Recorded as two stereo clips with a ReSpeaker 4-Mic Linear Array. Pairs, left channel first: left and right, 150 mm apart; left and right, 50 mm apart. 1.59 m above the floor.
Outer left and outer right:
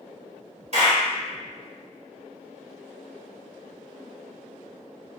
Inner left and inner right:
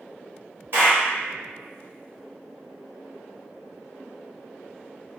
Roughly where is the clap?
Right.